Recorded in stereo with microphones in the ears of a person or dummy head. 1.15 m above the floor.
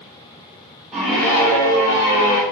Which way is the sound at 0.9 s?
10° right (ahead or behind).